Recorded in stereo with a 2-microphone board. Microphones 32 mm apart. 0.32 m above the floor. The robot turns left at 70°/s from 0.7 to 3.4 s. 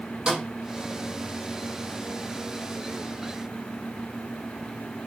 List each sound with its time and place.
0.3 s a snare drum: 25° right (ahead or behind), 6 m